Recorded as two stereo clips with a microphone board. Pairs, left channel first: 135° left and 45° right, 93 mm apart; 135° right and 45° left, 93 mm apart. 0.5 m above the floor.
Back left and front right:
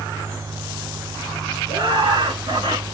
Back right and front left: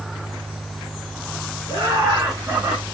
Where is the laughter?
Straight ahead, 6.5 m; by 2.8 s 15° right, 5.5 m.